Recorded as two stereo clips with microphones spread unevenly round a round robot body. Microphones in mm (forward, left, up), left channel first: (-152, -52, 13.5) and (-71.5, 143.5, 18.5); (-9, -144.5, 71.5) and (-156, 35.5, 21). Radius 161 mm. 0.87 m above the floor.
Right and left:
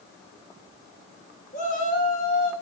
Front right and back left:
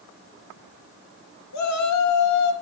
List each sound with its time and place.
1.5 s a shout: 45° right, 3 m